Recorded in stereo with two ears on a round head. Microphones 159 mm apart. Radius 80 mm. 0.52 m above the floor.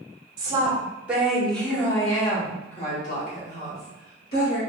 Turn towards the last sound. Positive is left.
turn(degrees=60)  # may be behind; listen again after turning